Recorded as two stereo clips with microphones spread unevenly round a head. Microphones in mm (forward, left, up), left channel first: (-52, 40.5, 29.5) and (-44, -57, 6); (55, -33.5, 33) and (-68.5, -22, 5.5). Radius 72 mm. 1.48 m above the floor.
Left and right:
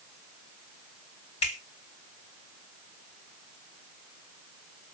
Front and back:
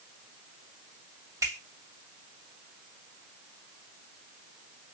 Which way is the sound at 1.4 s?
105° left.